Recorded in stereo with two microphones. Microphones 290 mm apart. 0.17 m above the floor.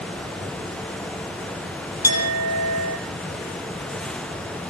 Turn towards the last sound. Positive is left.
turn(degrees=65)  # may be behind; listen again after turning